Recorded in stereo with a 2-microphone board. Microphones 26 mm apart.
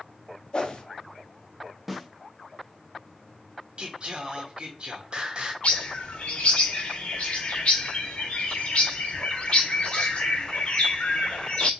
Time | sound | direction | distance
0.5 | a whoosh | 40° left (ahead or behind) | 0.7 m
1.9 | a snare drum | centre (ahead or behind) | 0.6 m
3.8 | singing | 40° right (ahead or behind) | 0.8 m
5.6 | a bird | 50° left (ahead or behind) | 0.9 m